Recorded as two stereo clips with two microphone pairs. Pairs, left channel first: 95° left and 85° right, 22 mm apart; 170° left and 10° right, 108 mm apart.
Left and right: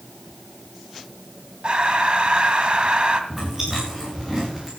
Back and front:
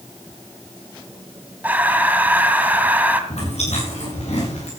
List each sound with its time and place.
1.6 s breathing: 75° right, 2 m
3.3 s chewing: 165° right, 8.5 m